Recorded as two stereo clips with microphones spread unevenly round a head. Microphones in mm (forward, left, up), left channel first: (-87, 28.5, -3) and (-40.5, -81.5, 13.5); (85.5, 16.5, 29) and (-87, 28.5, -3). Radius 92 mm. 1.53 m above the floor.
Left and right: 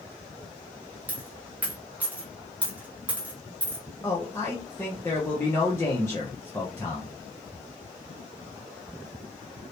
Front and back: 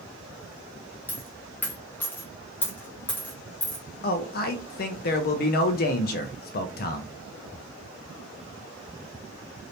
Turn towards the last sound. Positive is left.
turn(degrees=35)